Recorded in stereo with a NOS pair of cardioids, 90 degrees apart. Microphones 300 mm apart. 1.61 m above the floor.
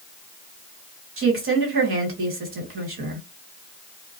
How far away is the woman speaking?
About 2 m.